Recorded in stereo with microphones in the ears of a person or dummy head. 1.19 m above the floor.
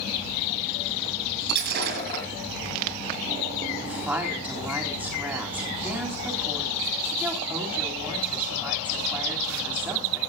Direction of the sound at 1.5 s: 55° right (ahead or behind).